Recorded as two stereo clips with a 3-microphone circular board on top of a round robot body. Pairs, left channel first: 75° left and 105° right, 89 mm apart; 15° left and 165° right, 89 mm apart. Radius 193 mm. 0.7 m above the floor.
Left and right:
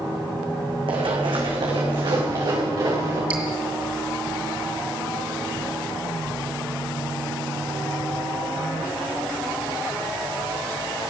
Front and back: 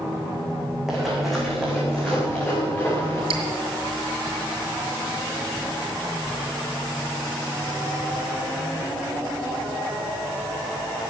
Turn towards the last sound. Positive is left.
turn(degrees=-175)